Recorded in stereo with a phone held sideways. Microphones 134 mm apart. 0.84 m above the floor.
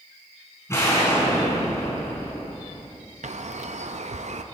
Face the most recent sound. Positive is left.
turn(degrees=-60)  # may be behind; listen again after turning